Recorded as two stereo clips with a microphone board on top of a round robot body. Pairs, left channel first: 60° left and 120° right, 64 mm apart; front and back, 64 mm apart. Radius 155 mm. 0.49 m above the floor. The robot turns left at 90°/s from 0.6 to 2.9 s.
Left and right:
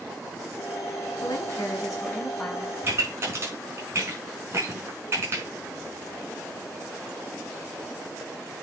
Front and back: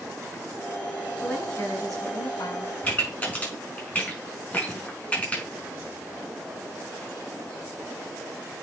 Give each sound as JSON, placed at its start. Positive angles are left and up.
{"t": 1.2, "sound": "a woman speaking", "azimuth_deg": 85, "distance_m": 6.5}
{"t": 2.8, "sound": "a pop", "azimuth_deg": -60, "distance_m": 5.5}